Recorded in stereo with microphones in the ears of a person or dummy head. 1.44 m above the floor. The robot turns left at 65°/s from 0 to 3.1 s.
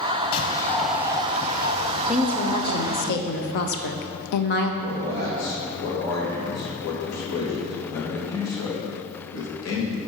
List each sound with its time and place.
0.3 s a bird: 40° left, 0.7 m; by 3.1 s 140° right, 0.7 m
2.1 s a woman speaking: 170° right, 0.6 m; by 4.7 s 125° left, 0.6 m
4.8 s a man speaking: 70° left (ahead or behind), 3 m